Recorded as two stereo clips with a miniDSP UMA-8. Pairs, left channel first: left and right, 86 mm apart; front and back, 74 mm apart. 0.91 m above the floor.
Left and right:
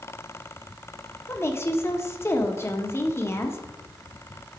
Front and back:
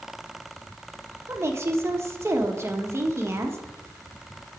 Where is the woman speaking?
140° left, 1.1 m.